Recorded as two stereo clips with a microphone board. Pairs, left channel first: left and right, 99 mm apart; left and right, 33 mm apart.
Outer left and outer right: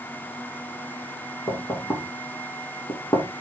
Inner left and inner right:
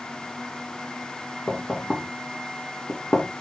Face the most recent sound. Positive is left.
turn(degrees=30)  # may be behind; listen again after turning